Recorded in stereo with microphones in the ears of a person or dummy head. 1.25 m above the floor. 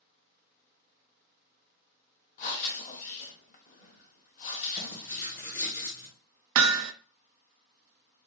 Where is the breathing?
45° left (ahead or behind), 1.2 m.